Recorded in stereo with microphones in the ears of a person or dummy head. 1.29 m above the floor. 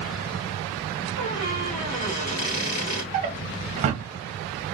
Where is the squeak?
25° left (ahead or behind), 1.3 m.